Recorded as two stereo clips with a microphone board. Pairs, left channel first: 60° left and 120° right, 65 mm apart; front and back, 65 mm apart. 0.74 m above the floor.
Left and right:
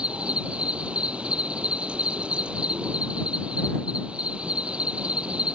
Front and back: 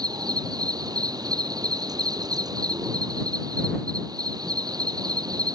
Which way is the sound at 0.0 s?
165° left.